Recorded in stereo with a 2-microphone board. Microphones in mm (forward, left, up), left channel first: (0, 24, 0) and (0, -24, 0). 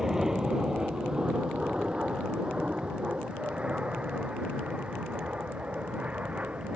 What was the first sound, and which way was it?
An aircraft, 10° right (ahead or behind).